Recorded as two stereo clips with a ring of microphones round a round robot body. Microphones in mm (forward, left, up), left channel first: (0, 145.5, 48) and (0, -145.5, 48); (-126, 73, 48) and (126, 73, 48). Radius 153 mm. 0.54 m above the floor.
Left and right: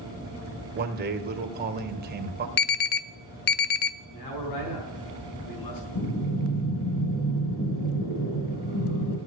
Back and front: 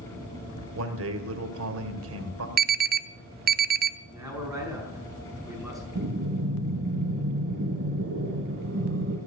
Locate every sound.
0.8 s a man speaking: 35° right, 2 m
2.6 s an alarm: 45° left, 0.7 m
4.1 s a man speaking: 90° left, 5 m
6.0 s breathing: 40° left, 1.8 m